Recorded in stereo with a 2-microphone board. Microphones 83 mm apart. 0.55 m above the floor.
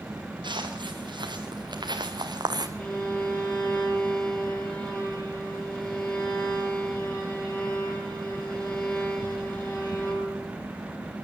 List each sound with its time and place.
0.4 s footsteps: 80° right, 4.5 m; by 2.7 s 60° right (ahead or behind), 1.7 m
2.8 s a violin: 25° left (ahead or behind), 5.5 m